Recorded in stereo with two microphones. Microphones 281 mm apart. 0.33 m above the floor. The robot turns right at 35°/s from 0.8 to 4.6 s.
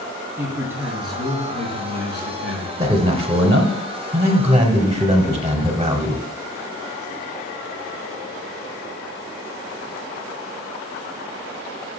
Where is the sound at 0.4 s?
10° right, 3 m; by 2.7 s 60° left, 3 m.